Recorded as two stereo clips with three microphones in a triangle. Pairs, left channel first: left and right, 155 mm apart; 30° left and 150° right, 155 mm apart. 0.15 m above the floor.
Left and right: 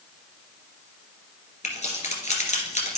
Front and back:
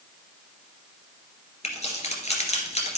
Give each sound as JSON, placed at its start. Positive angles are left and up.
{"t": 1.6, "sound": "keys jangling", "azimuth_deg": 65, "distance_m": 1.9}